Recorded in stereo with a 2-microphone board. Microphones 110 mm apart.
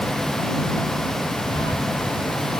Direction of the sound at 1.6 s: 50° left (ahead or behind).